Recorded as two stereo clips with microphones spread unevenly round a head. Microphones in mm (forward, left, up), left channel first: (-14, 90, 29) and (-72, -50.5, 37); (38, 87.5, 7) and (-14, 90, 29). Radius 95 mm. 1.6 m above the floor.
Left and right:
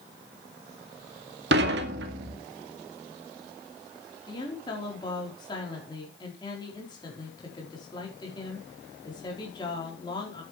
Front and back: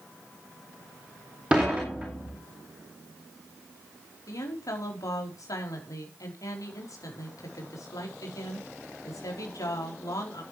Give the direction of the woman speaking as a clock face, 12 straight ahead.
12 o'clock.